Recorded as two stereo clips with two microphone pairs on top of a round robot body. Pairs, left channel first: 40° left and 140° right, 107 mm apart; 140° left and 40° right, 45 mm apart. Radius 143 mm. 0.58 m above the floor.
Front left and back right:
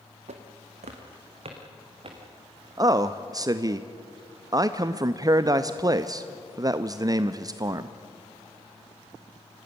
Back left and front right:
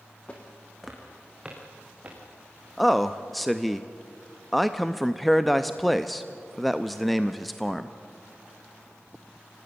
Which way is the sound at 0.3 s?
150° right.